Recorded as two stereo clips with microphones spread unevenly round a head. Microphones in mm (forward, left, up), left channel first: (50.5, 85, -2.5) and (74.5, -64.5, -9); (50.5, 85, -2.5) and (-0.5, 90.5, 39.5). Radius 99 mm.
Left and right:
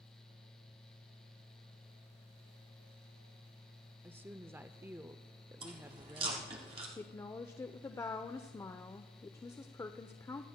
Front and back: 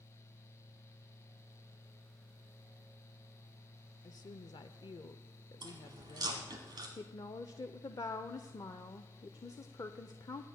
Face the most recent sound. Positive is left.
turn(degrees=30)